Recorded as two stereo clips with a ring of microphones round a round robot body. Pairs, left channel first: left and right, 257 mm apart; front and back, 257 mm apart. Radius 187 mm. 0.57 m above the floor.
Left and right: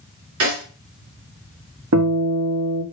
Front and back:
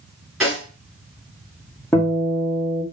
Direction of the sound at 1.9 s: 80° right.